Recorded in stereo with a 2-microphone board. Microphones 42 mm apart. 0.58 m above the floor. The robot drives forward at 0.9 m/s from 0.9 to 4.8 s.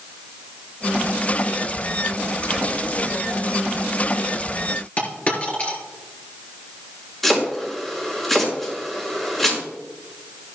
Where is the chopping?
10° left (ahead or behind), 5.5 m.